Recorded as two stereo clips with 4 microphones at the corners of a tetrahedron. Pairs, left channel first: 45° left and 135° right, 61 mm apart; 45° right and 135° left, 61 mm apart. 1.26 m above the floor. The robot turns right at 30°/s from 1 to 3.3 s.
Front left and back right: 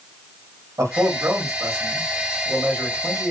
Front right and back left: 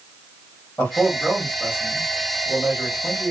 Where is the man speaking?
115° right, 1.5 m; by 3.3 s 45° right, 1.5 m.